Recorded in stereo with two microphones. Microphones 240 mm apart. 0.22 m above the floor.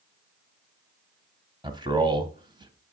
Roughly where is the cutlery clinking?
No cutlery clinking in this recording.